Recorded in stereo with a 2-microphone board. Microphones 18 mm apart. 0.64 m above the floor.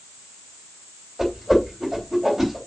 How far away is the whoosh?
About 4 m.